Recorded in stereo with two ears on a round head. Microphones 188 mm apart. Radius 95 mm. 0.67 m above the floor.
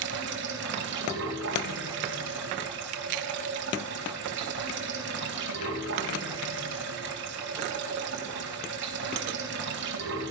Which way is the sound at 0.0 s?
55° right (ahead or behind).